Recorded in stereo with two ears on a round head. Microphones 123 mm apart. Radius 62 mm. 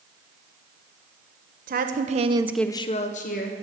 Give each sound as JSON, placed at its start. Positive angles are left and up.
{"t": 1.7, "sound": "a woman speaking", "side_deg": -70, "distance_m": 1.3}